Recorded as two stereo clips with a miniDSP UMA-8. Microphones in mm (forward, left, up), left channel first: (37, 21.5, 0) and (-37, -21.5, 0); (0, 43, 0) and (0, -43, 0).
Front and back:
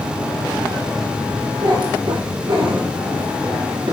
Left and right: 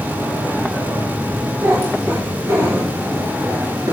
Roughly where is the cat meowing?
Behind right.